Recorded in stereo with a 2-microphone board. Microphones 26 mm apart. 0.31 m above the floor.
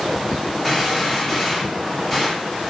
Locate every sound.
0.6 s a gunshot: 5° right (ahead or behind), 5.5 m